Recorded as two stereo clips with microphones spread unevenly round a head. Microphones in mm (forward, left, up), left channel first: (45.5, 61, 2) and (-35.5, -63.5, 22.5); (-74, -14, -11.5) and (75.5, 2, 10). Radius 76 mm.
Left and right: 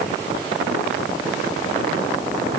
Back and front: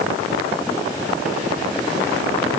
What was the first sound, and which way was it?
Only background noise.